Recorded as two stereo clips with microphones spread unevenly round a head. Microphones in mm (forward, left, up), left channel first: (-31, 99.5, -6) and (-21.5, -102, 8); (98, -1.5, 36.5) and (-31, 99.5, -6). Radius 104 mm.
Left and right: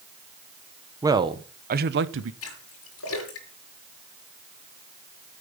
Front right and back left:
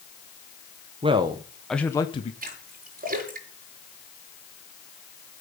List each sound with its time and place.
1.0 s a man speaking: 165° right, 1.2 m; by 2.3 s 100° right, 1.0 m
2.4 s a splash: 105° left, 6 m